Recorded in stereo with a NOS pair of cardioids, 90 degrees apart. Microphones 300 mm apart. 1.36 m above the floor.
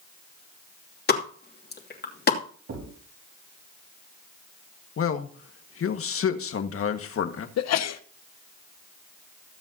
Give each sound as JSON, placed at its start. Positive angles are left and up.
{"t": 1.1, "sound": "a pop", "azimuth_deg": 35, "distance_m": 2.5}
{"t": 2.7, "sound": "a thud", "azimuth_deg": -55, "distance_m": 5.5}
{"t": 5.0, "sound": "a man speaking", "azimuth_deg": 50, "distance_m": 1.7}
{"t": 7.6, "sound": "a sneeze", "azimuth_deg": 60, "distance_m": 1.1}